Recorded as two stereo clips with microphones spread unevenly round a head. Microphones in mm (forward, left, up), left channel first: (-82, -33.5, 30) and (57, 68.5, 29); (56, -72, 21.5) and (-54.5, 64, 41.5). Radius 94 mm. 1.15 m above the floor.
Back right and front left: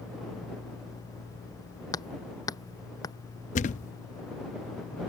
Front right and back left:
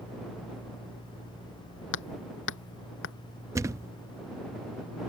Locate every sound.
1.9 s hammering: 70° right
3.5 s a thud: 170° right